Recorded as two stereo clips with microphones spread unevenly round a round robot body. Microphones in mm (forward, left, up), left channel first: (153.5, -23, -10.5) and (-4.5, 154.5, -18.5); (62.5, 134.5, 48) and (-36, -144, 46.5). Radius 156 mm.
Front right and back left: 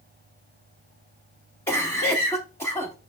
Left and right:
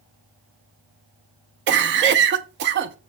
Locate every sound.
1.7 s a cough: 125° right, 0.6 m